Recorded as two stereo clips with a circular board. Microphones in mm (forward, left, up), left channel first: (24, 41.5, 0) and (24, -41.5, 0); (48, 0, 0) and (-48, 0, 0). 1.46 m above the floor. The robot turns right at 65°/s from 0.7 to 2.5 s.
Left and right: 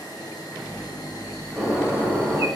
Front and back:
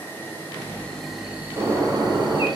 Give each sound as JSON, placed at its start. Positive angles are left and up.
{"t": 0.0, "sound": "an insect", "azimuth_deg": 65, "distance_m": 0.9}
{"t": 1.6, "sound": "a bird", "azimuth_deg": 165, "distance_m": 1.0}